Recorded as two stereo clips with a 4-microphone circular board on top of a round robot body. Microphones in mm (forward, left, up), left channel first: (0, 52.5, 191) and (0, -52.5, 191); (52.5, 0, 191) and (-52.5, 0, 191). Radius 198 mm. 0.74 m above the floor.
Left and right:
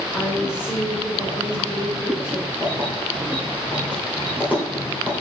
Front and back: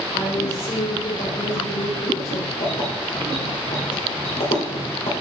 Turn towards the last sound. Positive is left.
turn(degrees=-15)